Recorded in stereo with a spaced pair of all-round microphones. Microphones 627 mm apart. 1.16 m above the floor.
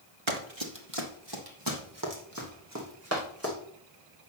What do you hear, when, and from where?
0.3 s running footsteps: 50° right (ahead or behind), 1.7 m; by 3.5 s 20° right (ahead or behind), 4.5 m